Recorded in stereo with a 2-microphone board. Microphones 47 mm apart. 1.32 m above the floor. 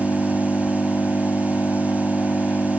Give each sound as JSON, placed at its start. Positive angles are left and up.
{"t": 0.0, "sound": "an engine running", "side_deg": 40}